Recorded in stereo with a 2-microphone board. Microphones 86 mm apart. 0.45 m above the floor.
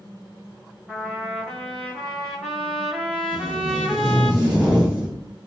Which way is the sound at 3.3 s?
5° right (ahead or behind).